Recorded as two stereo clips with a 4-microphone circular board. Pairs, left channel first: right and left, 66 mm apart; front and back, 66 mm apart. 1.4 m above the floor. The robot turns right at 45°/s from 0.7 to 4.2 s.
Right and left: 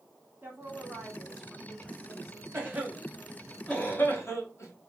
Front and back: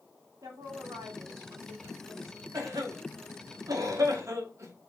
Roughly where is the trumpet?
I don't hear a trumpet.